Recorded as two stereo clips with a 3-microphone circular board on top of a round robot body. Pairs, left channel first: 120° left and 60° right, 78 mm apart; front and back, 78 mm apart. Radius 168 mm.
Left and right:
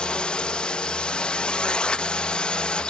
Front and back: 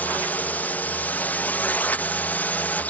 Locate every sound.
0.0 s a drone: 50° left